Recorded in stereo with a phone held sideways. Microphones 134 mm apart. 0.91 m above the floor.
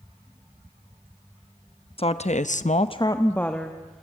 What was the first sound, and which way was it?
A woman speaking, 45° left (ahead or behind).